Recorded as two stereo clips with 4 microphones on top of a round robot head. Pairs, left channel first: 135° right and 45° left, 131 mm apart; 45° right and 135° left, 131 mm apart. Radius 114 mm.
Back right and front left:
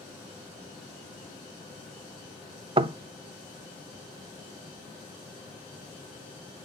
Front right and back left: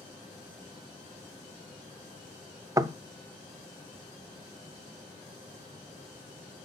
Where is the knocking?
80° left, 0.5 m.